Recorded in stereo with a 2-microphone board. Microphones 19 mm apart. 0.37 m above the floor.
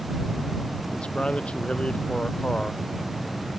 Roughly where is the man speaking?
Left.